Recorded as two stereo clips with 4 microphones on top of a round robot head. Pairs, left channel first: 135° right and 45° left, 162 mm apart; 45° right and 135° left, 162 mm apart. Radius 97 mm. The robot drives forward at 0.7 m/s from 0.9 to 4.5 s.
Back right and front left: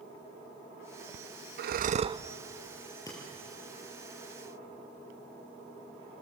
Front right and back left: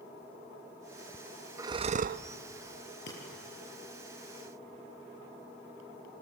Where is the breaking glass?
65° right, 6.5 m.